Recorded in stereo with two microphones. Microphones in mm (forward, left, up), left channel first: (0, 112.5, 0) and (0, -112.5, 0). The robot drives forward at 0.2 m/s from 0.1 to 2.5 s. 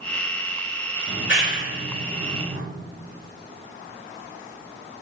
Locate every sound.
1.1 s a clap: 70° left (ahead or behind), 4 m